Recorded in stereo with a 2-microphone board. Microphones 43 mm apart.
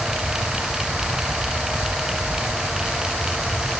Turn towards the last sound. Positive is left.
No sound to turn to.